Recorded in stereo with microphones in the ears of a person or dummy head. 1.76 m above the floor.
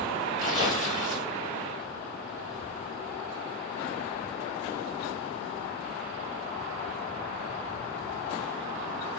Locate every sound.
0.4 s tearing paper: 30° left (ahead or behind), 1.6 m